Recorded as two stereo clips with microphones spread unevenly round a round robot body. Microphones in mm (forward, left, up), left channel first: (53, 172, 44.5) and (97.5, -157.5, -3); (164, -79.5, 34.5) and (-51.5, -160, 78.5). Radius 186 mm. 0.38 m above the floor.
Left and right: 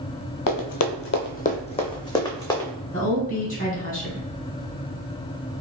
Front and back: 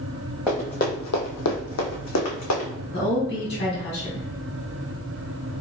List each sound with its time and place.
0.5 s running footsteps: 125° left, 0.6 m; by 2.7 s 15° left, 1.5 m
2.9 s a woman speaking: 30° left, 1.9 m